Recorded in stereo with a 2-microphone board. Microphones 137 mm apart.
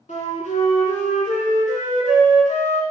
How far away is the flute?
About 0.7 m.